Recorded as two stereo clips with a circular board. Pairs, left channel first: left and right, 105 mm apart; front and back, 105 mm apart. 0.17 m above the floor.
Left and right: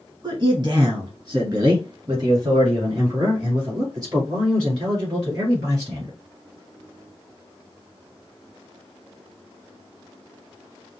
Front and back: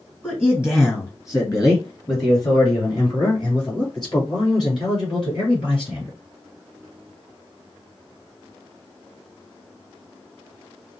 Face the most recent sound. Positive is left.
turn(degrees=-35)